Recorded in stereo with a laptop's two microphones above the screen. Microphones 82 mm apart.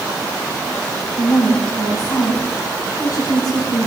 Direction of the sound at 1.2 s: 55° left (ahead or behind).